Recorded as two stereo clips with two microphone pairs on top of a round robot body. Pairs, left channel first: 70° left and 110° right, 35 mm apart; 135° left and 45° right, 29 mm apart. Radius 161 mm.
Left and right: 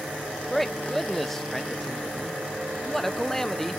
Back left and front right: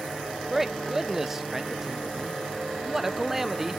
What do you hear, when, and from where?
0.5 s a man speaking: 25° left, 1.0 m